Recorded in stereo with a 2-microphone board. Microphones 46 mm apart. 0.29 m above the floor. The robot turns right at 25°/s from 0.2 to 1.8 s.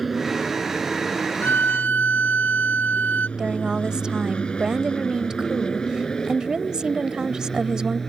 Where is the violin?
55° left (ahead or behind); by 3.3 s 45° left (ahead or behind).